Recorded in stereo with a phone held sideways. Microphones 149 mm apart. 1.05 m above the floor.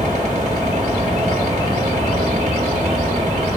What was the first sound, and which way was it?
A fan, 50° right (ahead or behind).